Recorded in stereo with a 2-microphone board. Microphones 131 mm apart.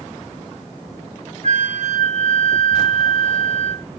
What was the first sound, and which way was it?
A flute, 65° right (ahead or behind).